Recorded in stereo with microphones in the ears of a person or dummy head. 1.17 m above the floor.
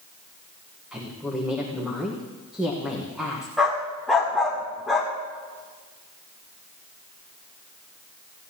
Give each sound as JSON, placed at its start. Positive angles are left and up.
{"t": 0.9, "sound": "a woman speaking", "side_deg": -10, "distance_m": 1.2}
{"t": 3.6, "sound": "a dog barking", "side_deg": -5, "distance_m": 1.1}